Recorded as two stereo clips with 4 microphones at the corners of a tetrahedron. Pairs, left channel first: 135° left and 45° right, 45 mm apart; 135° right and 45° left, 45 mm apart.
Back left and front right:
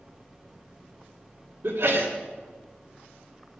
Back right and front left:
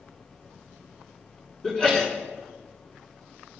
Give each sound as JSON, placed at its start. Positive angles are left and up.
{"t": 1.6, "sound": "a sneeze", "azimuth_deg": -65, "distance_m": 3.5}